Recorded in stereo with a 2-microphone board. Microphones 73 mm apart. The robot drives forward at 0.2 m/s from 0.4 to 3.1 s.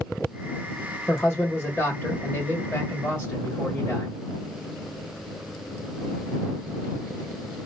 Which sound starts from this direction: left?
A man speaking, at 1.1 s.